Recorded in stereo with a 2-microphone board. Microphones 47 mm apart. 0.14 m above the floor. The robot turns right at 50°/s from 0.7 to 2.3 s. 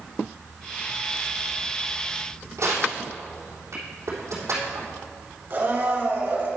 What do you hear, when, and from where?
2.6 s crushing: 75° right (ahead or behind), 3.5 m
5.5 s a blender: 45° right (ahead or behind), 2.5 m